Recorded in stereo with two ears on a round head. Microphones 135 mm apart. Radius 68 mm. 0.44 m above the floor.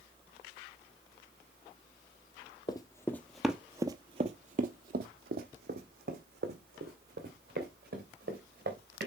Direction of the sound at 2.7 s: 30° left (ahead or behind).